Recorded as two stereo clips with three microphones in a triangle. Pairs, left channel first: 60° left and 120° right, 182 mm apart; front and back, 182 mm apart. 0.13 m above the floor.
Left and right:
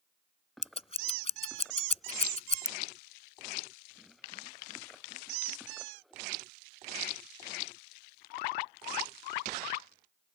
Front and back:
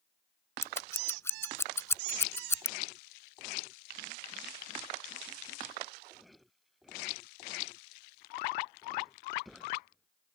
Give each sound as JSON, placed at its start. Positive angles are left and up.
{"t": 0.6, "sound": "scissors", "azimuth_deg": 65}